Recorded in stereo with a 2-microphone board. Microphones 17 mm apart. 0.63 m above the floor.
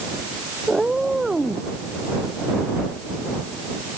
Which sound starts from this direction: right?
A cat meowing, at 0.7 s.